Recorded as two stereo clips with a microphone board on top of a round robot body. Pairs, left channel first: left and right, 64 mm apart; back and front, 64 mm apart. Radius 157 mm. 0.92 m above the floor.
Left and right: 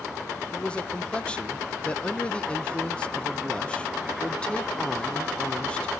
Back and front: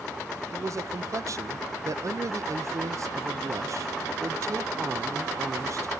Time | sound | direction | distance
0.5 | a man speaking | 20° left | 0.8 m